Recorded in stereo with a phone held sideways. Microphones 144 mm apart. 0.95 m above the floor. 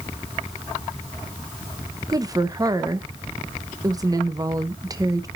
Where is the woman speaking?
25° right (ahead or behind), 0.9 m.